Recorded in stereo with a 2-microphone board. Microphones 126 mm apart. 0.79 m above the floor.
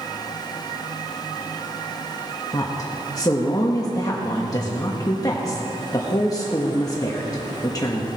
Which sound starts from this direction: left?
A woman speaking, at 2.5 s.